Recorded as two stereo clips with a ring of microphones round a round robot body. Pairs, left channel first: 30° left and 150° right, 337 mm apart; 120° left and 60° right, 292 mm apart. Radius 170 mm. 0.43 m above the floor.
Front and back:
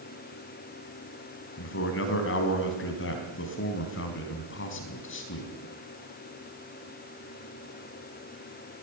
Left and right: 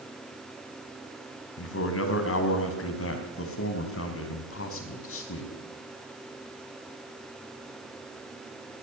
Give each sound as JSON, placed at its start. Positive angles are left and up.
{"t": 1.6, "sound": "a man speaking", "azimuth_deg": 80, "distance_m": 4.5}